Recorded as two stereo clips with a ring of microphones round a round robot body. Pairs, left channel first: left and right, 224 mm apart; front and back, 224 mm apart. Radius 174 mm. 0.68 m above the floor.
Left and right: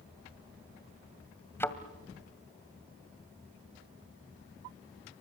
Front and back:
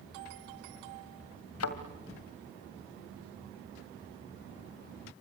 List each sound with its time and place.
1.6 s a thud: 10° left, 1.9 m